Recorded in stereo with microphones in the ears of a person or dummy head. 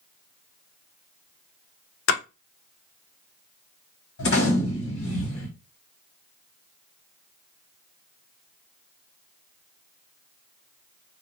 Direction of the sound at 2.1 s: 70° left (ahead or behind).